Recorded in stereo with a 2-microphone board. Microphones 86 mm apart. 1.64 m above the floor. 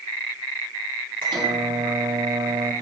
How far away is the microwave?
About 4.5 m.